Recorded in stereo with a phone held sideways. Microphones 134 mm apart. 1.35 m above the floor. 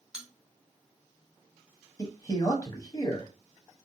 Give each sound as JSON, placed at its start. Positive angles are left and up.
{"t": 0.1, "sound": "a bell", "side_deg": -5, "distance_m": 0.8}
{"t": 2.0, "sound": "a man speaking", "side_deg": 20, "distance_m": 0.8}